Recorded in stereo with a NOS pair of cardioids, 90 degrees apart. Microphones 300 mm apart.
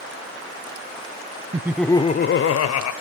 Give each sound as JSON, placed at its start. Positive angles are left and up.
{"t": 1.5, "sound": "laughter", "azimuth_deg": -15, "distance_m": 0.9}